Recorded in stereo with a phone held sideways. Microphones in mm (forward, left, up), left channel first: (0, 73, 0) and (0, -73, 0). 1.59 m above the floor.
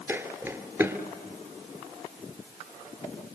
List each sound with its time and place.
0.1 s footsteps: 15° right (ahead or behind), 1.8 m